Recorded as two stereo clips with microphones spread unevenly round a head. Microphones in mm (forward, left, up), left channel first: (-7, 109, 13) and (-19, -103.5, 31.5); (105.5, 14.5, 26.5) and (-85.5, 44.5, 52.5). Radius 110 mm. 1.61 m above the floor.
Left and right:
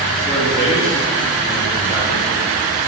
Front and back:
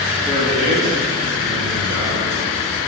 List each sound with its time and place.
0.2 s a man speaking: 165° left, 2 m; by 2.3 s 170° right, 3 m